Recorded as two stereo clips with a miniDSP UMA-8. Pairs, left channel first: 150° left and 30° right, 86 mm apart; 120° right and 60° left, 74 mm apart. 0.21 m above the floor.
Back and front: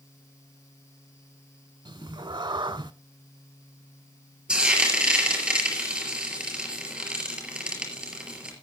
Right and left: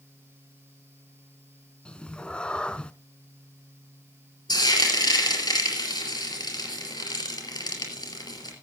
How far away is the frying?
About 4.5 m.